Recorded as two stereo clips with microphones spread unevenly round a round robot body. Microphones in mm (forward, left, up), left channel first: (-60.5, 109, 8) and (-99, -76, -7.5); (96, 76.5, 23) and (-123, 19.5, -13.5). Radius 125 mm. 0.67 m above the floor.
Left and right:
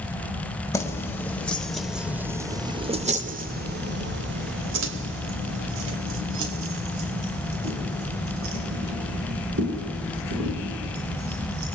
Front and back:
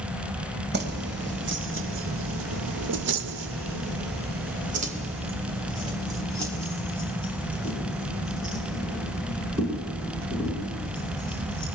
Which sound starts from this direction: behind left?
Keys jangling, at 0.7 s.